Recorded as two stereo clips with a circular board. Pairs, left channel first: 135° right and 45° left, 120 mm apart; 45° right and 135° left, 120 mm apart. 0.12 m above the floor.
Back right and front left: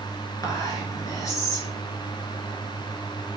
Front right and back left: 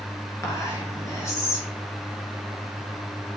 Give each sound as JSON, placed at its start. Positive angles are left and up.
{"t": 0.4, "sound": "whispering", "azimuth_deg": -95, "distance_m": 1.3}